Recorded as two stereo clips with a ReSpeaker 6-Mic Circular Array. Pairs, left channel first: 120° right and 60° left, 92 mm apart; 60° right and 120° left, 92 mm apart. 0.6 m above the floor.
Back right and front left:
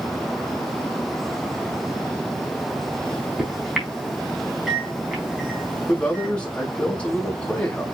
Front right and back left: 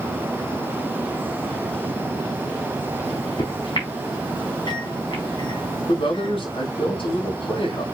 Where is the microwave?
25° right, 5 m.